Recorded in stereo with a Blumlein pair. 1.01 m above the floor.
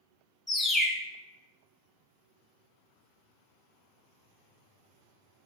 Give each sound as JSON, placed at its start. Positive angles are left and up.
{"t": 0.5, "sound": "a bird", "azimuth_deg": 15, "distance_m": 0.5}